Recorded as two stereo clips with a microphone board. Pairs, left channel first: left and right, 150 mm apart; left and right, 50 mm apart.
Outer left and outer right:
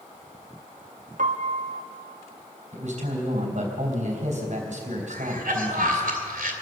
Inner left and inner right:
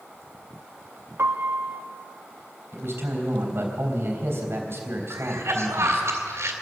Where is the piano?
65° right (ahead or behind), 1.1 m.